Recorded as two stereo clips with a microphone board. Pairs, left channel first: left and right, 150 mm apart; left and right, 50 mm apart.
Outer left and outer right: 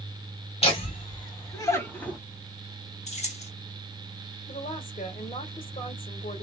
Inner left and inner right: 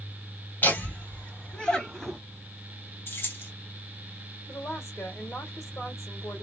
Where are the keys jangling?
50° left (ahead or behind), 1.0 m.